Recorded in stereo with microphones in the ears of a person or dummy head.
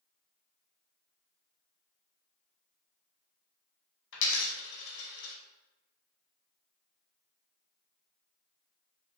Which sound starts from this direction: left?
A dropped coin, at 4.1 s.